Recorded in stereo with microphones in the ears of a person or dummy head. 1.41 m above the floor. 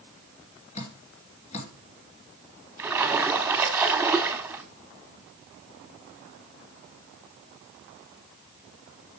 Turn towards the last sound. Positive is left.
turn(degrees=-5)  # may be behind; listen again after turning